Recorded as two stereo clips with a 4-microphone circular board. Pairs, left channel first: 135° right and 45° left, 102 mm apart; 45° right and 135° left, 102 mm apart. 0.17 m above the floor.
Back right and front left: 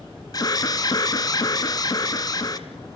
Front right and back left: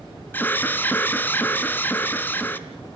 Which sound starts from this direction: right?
An alarm, at 0.3 s.